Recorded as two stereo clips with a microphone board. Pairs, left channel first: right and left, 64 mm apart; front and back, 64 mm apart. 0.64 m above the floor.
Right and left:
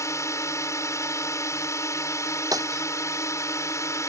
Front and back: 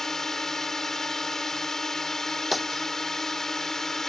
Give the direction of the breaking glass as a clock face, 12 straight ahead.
9 o'clock.